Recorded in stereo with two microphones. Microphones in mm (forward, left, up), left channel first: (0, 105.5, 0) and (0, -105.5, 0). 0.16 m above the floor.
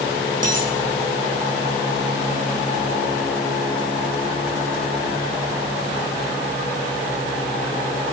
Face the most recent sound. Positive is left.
turn(degrees=-40)  # may be behind; listen again after turning